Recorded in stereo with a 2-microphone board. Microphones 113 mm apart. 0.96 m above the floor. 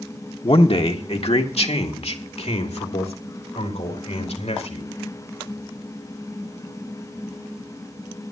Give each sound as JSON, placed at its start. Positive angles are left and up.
{"t": 0.4, "sound": "a man speaking", "side_deg": 55, "distance_m": 1.5}